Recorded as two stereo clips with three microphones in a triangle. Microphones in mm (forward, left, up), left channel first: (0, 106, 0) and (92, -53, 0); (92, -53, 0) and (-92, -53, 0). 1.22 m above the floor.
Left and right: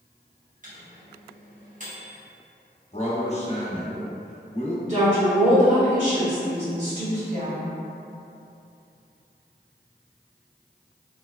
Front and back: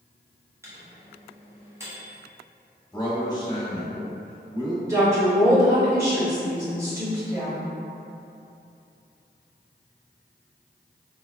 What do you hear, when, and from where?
0.6 s a microwave: 105° right, 1.0 m
2.9 s a man speaking: 65° left, 0.9 m
4.8 s a woman speaking: 105° right, 2.0 m